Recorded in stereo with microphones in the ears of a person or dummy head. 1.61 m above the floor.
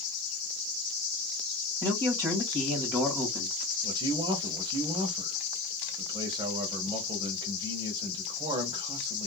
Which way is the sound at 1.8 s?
15° right (ahead or behind).